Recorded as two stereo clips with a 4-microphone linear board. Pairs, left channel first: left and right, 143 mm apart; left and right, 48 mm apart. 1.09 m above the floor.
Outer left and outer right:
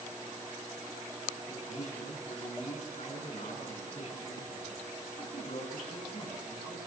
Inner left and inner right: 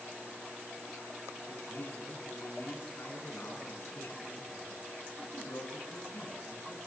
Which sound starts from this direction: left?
A man speaking, at 1.5 s.